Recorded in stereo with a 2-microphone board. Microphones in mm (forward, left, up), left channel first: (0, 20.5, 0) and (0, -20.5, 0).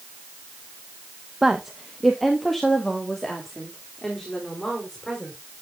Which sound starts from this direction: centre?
A woman speaking, at 1.4 s.